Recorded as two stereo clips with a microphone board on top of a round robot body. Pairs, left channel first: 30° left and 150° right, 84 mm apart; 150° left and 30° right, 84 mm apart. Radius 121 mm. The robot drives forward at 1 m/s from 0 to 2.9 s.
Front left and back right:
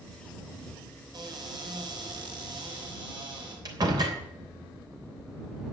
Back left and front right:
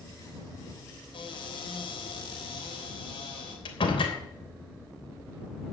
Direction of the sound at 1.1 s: 170° left.